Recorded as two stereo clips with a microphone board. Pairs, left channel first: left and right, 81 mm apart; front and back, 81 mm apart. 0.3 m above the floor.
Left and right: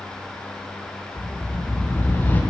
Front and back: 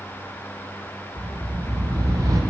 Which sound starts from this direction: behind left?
A whoosh, at 1.2 s.